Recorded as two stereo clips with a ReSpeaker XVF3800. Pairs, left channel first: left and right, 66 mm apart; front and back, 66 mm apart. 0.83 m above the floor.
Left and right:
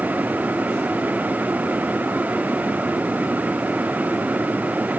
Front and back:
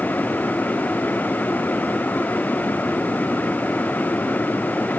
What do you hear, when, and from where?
Only background noise.